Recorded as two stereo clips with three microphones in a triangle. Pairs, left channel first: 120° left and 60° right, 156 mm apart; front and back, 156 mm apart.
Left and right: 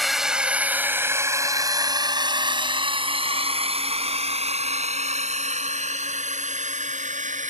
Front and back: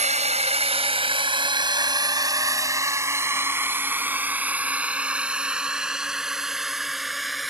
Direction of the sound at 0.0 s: 150° right.